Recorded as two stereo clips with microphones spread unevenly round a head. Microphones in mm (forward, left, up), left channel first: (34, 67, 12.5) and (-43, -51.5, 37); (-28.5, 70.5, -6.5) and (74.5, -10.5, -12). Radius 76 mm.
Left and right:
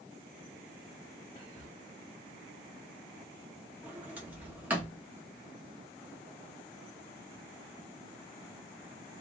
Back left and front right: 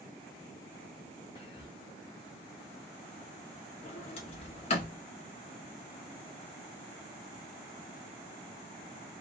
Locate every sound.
1.4 s whispering: 120° left, 0.6 m
3.8 s a sliding door: 170° left, 0.6 m